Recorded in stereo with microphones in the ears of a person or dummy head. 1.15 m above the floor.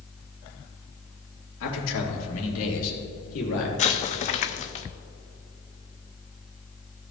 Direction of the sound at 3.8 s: 40° left (ahead or behind).